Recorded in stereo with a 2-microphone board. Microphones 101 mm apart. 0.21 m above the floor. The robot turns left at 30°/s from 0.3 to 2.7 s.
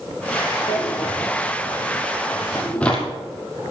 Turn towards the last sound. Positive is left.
turn(degrees=10)  # may be behind; listen again after turning